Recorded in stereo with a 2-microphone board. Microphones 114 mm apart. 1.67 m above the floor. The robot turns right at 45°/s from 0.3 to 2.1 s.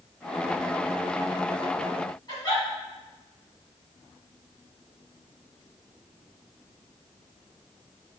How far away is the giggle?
About 1.8 m.